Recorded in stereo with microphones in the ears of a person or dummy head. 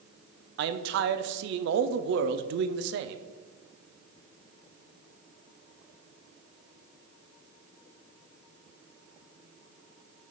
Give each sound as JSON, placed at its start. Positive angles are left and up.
{"t": 0.6, "sound": "a man speaking", "side_deg": -70, "distance_m": 0.5}